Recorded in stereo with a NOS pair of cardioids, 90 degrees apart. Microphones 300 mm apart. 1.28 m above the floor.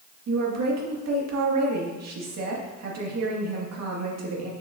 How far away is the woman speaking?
About 2.0 m.